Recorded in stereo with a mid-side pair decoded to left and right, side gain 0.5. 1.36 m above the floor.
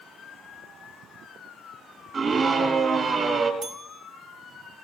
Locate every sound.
2.1 s a scream: 45° right, 3.5 m
3.6 s a bell: 65° right, 2.5 m